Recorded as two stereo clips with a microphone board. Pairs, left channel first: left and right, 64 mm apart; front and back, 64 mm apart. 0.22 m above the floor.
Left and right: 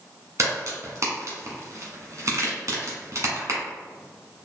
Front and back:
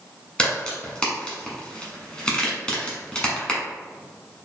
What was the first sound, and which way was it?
A crack, 70° right.